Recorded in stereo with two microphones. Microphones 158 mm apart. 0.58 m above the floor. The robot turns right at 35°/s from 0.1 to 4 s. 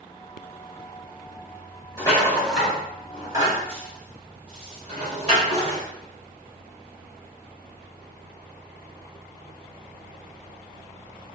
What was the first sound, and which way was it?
A rattle, 25° left (ahead or behind).